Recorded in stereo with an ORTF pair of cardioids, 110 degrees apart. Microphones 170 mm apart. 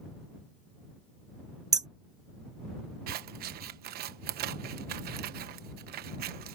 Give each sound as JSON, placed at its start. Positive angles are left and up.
{"t": 1.7, "sound": "hammering", "azimuth_deg": -20}
{"t": 3.1, "sound": "scissors", "azimuth_deg": -65}